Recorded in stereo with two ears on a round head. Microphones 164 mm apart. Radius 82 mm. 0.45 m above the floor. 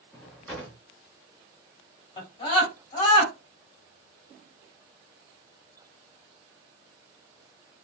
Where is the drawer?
5° left (ahead or behind), 0.9 m.